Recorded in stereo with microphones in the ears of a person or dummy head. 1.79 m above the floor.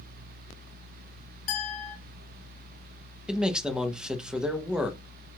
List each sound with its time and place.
1.5 s a clink: 50° left (ahead or behind), 1.8 m
3.3 s a man speaking: 5° right (ahead or behind), 0.6 m